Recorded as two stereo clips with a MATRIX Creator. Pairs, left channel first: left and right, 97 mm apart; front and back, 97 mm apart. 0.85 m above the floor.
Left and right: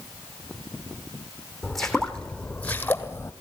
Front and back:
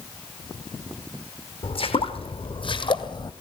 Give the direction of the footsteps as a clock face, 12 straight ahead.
12 o'clock.